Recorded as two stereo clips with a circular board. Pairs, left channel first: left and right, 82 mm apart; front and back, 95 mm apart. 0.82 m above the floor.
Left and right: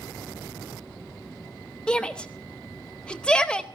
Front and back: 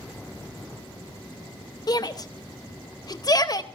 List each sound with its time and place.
1.9 s a shout: 15° left, 0.8 m